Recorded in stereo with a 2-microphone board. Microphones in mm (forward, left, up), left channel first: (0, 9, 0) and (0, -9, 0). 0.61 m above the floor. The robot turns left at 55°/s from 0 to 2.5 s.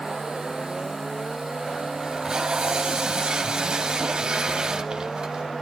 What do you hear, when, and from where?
2.0 s tape being pulled: 20° right (ahead or behind), 2 m; by 5.5 s 45° right (ahead or behind), 2 m